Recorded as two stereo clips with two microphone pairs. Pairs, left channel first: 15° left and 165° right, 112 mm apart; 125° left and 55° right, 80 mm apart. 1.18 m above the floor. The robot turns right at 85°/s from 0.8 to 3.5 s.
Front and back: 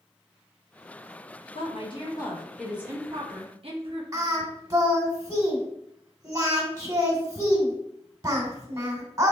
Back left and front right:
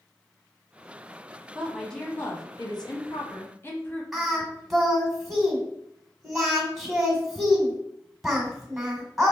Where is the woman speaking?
15° left, 0.9 m; by 4.0 s straight behind, 0.9 m.